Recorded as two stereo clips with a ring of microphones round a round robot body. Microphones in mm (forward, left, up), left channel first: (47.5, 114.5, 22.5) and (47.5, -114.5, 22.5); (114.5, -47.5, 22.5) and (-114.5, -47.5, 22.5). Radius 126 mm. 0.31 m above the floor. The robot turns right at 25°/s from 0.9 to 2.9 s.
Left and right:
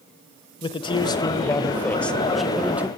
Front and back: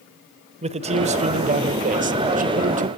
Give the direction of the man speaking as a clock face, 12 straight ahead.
7 o'clock.